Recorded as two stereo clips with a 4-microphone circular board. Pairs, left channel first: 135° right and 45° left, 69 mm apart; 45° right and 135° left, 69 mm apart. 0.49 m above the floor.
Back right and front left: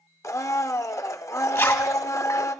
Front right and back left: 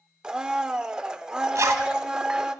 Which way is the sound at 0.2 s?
150° right.